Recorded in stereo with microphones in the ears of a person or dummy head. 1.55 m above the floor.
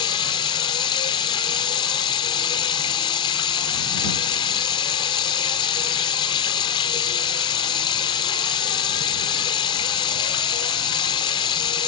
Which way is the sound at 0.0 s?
25° left (ahead or behind).